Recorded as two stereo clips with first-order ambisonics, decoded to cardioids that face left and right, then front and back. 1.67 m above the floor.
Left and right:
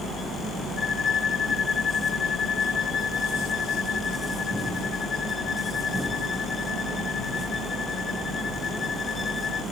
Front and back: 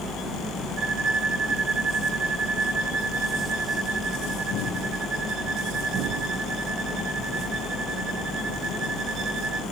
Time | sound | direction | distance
0.8 | a violin | 155° left | 1.2 m